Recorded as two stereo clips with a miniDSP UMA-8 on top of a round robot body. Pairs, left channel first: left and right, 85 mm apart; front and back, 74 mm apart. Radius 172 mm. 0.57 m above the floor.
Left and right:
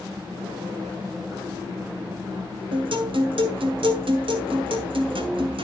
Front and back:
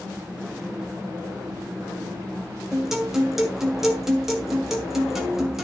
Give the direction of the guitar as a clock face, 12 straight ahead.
3 o'clock.